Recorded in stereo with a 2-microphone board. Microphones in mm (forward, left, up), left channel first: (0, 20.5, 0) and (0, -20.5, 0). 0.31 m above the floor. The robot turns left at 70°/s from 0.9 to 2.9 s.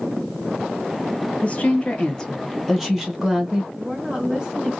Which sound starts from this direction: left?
A woman speaking, at 1.4 s.